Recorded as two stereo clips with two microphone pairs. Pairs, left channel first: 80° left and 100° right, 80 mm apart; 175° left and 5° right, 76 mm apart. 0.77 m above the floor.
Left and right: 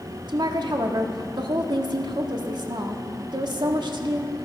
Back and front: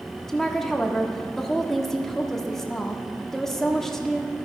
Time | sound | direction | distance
0.3 | a woman speaking | 105° right | 1.3 m